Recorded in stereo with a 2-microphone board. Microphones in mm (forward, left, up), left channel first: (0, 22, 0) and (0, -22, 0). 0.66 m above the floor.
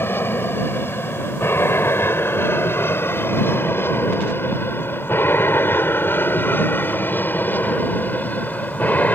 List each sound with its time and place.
0.0 s an aircraft: 60° left (ahead or behind); by 9.2 s 40° left (ahead or behind)